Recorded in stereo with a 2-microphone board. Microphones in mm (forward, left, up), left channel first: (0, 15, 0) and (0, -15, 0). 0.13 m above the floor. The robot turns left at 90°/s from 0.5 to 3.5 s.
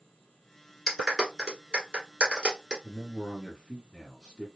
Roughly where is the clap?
Centre.